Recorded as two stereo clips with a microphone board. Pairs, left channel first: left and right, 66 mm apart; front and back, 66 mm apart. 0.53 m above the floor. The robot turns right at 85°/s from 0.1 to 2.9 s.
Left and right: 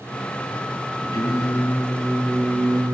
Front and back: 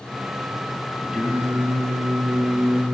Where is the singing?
110° left, 7 m; by 2.9 s 100° right, 7 m.